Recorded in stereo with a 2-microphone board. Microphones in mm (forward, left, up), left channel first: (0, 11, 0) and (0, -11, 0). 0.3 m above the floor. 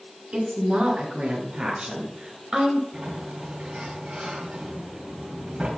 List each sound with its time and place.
0.3 s a woman speaking: 55° right (ahead or behind), 2 m; by 2.8 s 20° right (ahead or behind), 1.0 m
2.9 s a sliding door: 60° right (ahead or behind), 2.5 m